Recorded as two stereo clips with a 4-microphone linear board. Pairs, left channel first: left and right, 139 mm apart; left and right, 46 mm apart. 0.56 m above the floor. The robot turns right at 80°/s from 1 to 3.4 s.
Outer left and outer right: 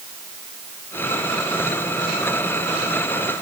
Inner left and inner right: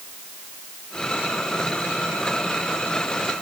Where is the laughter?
I don't hear laughter.